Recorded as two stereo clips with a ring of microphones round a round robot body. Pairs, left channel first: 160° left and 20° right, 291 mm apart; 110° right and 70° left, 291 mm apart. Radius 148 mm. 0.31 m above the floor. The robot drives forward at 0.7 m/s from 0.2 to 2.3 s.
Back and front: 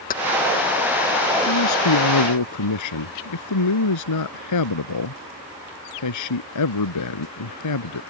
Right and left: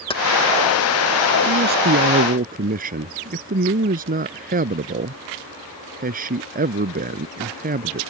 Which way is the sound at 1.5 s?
125° left.